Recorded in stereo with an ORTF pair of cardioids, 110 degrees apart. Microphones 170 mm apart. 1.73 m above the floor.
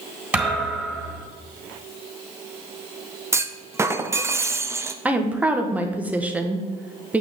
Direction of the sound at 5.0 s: 10° right.